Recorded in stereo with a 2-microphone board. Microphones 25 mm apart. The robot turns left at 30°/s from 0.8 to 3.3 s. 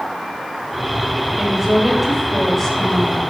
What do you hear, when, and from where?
1.4 s a woman speaking: 155° right, 4 m; by 3.2 s 145° left, 4 m